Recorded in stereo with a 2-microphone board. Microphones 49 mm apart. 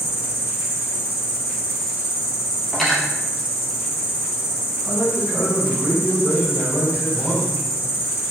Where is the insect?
5° right (ahead or behind), 1.5 m.